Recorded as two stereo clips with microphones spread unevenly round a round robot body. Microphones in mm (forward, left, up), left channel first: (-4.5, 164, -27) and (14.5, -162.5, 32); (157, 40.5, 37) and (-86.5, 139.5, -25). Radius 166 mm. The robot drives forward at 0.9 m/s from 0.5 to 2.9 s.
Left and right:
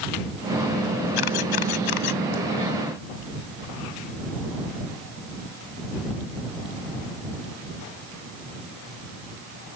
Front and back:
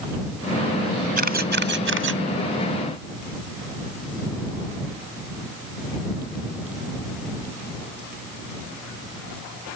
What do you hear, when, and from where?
1.2 s a camera shutter: 100° left; by 2.2 s 120° left